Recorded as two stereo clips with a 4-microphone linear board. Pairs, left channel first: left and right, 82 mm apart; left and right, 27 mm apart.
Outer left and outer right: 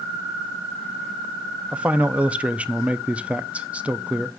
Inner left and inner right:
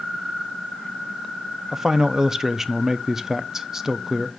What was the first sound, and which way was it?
A man speaking, 15° right (ahead or behind).